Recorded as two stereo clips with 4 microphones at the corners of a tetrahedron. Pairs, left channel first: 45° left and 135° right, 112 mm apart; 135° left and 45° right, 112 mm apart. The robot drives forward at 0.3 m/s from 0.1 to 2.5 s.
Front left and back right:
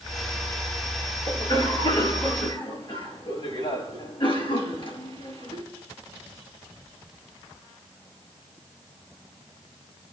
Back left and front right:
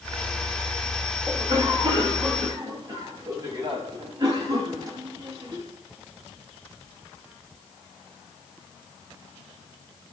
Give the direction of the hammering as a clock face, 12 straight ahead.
I don't hear hammering.